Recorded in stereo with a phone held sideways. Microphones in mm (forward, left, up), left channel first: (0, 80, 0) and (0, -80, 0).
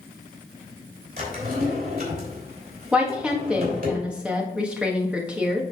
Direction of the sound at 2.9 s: 5° right (ahead or behind).